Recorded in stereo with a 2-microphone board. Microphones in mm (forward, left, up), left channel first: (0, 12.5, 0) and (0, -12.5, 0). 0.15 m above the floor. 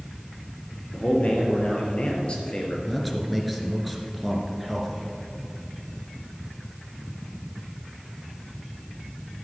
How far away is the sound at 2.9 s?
About 1.9 m.